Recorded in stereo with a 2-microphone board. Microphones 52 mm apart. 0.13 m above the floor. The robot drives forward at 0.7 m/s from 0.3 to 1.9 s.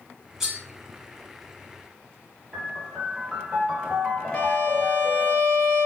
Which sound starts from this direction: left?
A violin, at 4.3 s.